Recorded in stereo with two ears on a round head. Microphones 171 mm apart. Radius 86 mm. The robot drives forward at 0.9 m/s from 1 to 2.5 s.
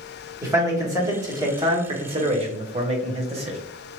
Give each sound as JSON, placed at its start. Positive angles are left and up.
{"t": 0.4, "sound": "a man speaking", "side_deg": -15, "distance_m": 1.6}